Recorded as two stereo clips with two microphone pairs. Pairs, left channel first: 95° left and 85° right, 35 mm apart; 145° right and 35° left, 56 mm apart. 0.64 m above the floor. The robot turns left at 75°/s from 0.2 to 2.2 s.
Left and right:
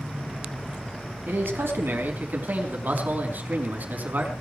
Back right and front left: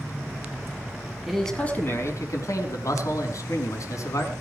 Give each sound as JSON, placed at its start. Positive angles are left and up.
{"t": 1.3, "sound": "a man speaking", "azimuth_deg": -50, "distance_m": 5.0}